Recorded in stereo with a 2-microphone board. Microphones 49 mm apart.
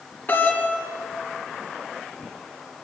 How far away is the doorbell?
About 2.5 m.